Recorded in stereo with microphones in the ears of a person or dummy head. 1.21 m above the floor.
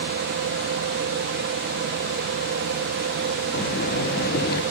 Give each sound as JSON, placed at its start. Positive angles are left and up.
{"t": 0.0, "sound": "a fan", "side_deg": -50, "distance_m": 0.9}
{"t": 3.5, "sound": "breathing", "side_deg": 50, "distance_m": 0.8}